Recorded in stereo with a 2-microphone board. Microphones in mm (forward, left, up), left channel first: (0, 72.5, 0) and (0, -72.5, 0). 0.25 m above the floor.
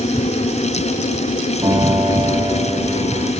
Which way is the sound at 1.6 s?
30° right (ahead or behind).